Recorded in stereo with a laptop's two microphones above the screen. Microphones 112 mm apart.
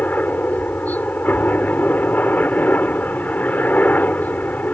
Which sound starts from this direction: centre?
A helicopter, at 0.0 s.